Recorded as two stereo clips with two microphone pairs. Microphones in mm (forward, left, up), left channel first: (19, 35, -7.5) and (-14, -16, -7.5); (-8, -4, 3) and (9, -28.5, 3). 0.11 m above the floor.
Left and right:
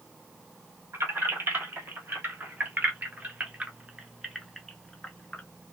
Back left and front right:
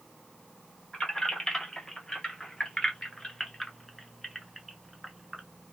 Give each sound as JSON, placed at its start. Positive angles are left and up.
{"t": 0.9, "sound": "keys jangling", "azimuth_deg": -165, "distance_m": 2.0}